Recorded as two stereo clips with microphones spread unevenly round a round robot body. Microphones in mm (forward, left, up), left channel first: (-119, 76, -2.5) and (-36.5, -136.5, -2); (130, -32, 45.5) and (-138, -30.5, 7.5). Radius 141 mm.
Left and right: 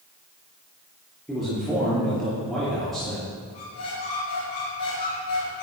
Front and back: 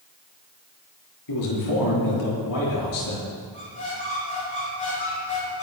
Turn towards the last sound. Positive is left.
turn(degrees=70)